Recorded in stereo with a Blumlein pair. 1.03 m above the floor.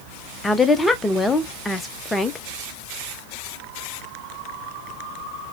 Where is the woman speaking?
10° left, 0.6 m.